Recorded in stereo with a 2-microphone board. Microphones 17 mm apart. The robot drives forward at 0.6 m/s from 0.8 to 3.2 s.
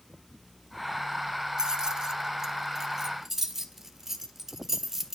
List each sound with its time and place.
1.6 s keys jangling: 30° right (ahead or behind), 0.7 m; by 5.2 s 20° right (ahead or behind), 1.2 m